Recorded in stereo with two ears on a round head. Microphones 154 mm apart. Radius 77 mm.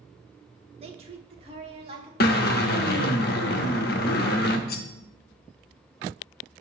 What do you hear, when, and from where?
0.8 s a woman speaking: 35° right (ahead or behind), 0.9 m
2.2 s a drill: 60° left (ahead or behind), 0.9 m
4.7 s cutlery clinking: 60° left (ahead or behind), 0.6 m